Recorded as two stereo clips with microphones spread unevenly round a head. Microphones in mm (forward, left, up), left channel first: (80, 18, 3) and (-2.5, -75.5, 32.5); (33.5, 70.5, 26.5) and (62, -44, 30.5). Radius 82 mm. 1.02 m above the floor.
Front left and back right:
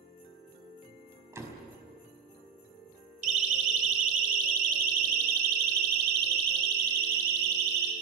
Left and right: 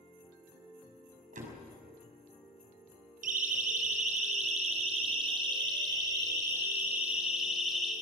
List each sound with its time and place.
1.3 s a door slam: 65° right, 6 m
3.2 s a siren: 110° right, 4 m; by 7.9 s 165° right, 3.5 m